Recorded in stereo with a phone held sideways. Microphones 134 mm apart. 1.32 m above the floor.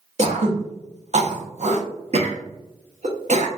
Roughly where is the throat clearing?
Right.